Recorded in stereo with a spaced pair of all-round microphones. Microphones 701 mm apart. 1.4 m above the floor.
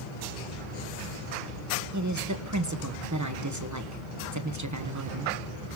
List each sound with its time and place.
1.9 s a woman speaking: 25° right (ahead or behind), 1.3 m